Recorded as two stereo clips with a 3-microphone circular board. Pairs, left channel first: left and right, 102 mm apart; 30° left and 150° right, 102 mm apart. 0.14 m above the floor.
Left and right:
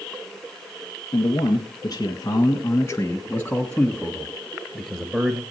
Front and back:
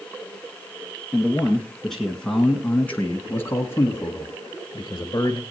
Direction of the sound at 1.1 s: 125° left.